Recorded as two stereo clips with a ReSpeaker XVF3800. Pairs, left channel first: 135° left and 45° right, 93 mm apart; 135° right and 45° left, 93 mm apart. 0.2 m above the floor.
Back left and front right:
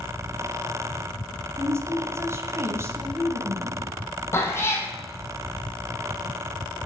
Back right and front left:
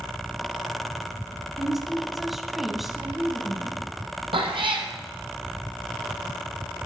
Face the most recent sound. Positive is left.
turn(degrees=70)